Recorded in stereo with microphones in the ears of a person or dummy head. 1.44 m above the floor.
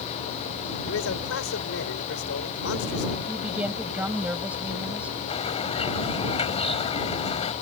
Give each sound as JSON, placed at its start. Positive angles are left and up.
{"t": 0.9, "sound": "a man speaking", "side_deg": 85}
{"t": 3.3, "sound": "a woman speaking", "side_deg": -5}
{"t": 5.3, "sound": "a bird", "side_deg": 35}